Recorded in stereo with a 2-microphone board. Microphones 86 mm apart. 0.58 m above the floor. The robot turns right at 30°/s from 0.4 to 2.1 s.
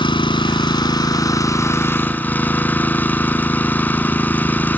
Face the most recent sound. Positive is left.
turn(degrees=160)